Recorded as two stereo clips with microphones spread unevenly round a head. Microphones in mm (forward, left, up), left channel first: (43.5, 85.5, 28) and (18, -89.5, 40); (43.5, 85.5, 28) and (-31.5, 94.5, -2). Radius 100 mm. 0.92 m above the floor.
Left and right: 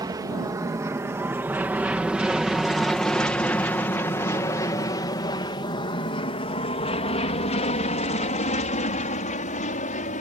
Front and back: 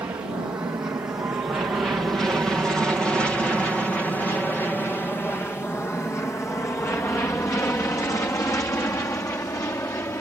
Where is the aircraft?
160° right; by 10.2 s 45° left.